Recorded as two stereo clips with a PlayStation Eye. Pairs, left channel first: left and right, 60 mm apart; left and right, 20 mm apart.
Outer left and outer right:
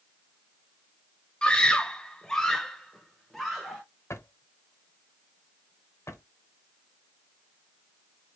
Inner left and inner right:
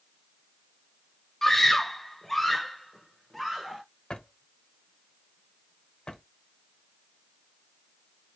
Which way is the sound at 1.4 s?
15° left (ahead or behind).